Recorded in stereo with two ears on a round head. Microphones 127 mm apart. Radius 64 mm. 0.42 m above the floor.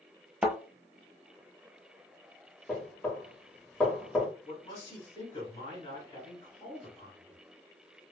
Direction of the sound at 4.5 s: 30° left (ahead or behind).